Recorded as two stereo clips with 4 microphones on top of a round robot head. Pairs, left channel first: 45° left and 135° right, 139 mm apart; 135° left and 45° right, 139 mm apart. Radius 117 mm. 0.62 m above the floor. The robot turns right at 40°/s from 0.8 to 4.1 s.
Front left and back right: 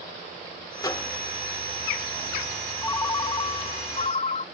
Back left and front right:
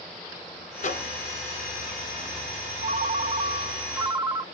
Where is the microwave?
105° left, 1.8 m; by 1.1 s 120° left, 1.8 m.